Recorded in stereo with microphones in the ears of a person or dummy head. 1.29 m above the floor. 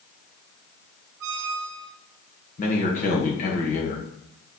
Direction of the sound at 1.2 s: 65° right (ahead or behind).